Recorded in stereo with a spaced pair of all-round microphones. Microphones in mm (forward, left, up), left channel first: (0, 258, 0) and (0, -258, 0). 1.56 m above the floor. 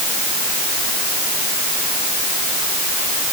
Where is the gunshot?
I don't hear a gunshot.